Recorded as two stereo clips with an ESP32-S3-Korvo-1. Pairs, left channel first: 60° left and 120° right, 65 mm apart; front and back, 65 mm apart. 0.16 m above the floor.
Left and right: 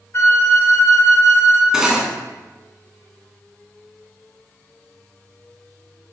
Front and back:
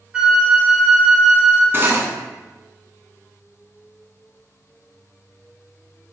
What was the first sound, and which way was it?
A flute, 105° left.